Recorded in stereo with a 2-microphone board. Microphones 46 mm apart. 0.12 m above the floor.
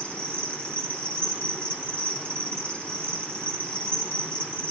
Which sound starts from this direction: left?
An insect, at 0.0 s.